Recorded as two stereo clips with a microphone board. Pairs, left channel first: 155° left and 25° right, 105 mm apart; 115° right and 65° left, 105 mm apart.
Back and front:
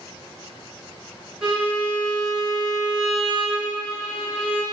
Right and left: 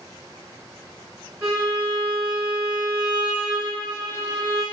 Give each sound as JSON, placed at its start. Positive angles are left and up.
{"t": 1.4, "sound": "a violin", "azimuth_deg": 50, "distance_m": 1.8}